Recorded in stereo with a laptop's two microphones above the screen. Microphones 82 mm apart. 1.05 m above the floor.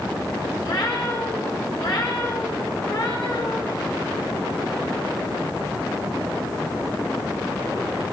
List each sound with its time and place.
0.6 s a cat meowing: 65° left (ahead or behind), 3 m